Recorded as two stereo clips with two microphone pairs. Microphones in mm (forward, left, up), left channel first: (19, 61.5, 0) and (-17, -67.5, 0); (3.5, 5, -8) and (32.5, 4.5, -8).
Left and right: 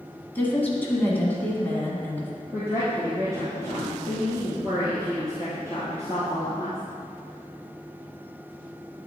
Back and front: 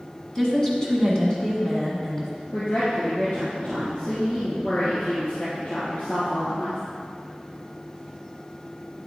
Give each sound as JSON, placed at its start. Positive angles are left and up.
{"t": 0.3, "sound": "a woman speaking", "azimuth_deg": 135, "distance_m": 1.6}
{"t": 2.5, "sound": "a woman speaking", "azimuth_deg": -170, "distance_m": 2.0}